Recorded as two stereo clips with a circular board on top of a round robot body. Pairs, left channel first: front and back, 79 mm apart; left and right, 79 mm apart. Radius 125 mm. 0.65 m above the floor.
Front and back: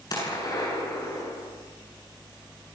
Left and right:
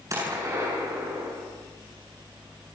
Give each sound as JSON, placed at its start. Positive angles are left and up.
{"t": 0.1, "sound": "a gunshot", "azimuth_deg": -40, "distance_m": 9.0}